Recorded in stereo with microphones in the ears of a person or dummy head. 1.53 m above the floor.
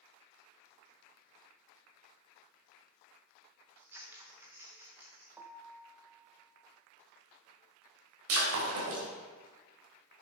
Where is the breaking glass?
75° right (ahead or behind), 3.5 m.